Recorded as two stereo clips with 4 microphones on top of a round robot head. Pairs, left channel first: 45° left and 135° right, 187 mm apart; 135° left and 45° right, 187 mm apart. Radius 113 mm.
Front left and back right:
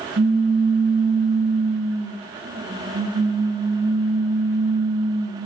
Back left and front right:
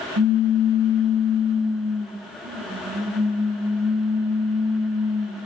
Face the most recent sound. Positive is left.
turn(degrees=-80)